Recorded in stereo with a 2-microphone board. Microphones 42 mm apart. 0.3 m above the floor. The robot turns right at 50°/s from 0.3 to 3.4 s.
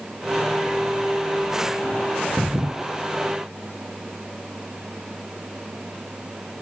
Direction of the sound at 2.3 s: 10° right (ahead or behind).